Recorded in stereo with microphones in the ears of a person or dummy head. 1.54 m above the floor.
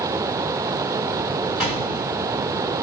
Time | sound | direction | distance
1.6 | a gunshot | 10° right (ahead or behind) | 1.6 m